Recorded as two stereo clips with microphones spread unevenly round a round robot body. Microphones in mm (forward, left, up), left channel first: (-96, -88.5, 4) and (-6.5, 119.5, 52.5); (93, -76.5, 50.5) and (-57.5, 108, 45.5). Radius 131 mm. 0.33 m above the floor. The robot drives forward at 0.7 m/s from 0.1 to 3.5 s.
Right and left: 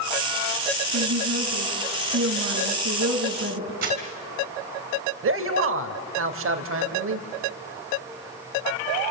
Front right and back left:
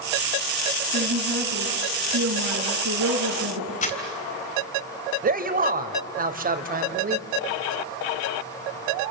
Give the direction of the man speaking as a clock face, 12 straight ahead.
9 o'clock.